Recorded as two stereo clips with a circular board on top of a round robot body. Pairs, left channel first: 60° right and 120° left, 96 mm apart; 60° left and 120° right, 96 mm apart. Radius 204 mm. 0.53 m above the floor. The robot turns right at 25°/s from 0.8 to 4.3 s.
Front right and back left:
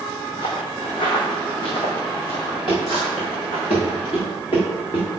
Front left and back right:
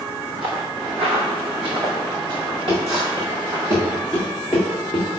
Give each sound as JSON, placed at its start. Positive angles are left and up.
{"t": 0.4, "sound": "footsteps", "azimuth_deg": -90, "distance_m": 1.3}
{"t": 2.7, "sound": "running footsteps", "azimuth_deg": -90, "distance_m": 3.5}